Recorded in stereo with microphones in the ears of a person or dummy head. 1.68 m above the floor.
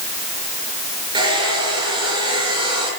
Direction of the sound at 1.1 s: 25° right (ahead or behind).